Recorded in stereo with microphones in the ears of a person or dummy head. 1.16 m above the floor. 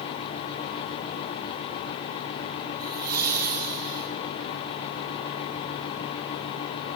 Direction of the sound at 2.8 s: 55° right (ahead or behind).